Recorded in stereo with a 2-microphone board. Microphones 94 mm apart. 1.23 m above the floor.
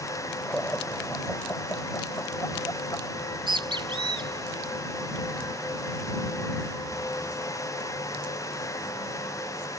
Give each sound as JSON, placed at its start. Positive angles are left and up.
{"t": 0.5, "sound": "laughter", "side_deg": 15}
{"t": 3.2, "sound": "a bird", "side_deg": -60}